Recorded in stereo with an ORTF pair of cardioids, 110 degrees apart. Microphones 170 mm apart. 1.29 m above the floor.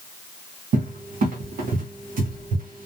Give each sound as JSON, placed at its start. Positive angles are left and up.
{"t": 0.7, "sound": "a cupboard door", "azimuth_deg": -55, "distance_m": 0.7}